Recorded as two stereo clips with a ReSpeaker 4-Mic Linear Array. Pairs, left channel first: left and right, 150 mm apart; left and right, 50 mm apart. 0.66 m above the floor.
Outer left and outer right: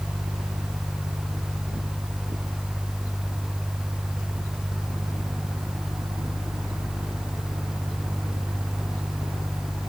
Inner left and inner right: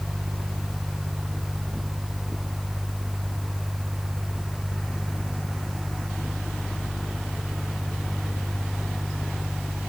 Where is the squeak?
No squeak in this recording.